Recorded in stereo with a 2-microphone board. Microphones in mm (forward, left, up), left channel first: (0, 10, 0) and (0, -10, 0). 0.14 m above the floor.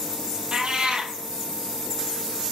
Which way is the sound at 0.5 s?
50° right (ahead or behind).